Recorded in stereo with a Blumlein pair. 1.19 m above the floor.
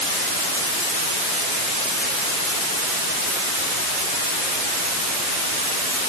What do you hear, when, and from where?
Only background noise.